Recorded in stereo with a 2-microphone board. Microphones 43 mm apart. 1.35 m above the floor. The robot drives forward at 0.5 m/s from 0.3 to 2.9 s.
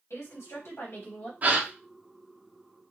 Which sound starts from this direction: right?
A gasp, at 1.4 s.